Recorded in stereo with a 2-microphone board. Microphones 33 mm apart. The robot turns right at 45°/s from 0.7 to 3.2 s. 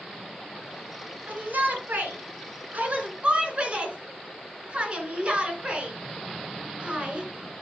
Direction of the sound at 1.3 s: 55° right (ahead or behind).